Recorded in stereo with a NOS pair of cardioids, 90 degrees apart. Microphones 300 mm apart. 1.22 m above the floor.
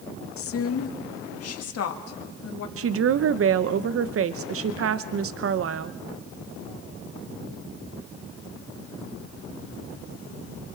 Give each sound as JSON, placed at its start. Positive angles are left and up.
{"t": 0.4, "sound": "a woman speaking", "azimuth_deg": 50, "distance_m": 1.7}
{"t": 2.8, "sound": "a woman speaking", "azimuth_deg": -50, "distance_m": 0.7}